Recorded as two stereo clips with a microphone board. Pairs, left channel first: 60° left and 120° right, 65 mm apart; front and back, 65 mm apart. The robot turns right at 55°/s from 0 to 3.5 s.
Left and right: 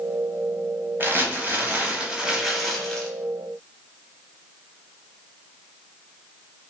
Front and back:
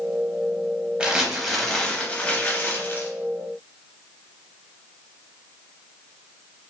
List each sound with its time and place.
1.0 s crumpling: 120° right, 0.6 m; by 3.1 s 5° right, 0.6 m